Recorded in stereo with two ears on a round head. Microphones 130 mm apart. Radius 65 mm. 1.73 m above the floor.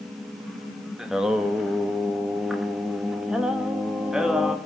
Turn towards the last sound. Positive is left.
turn(degrees=-5)  # may be behind; listen again after turning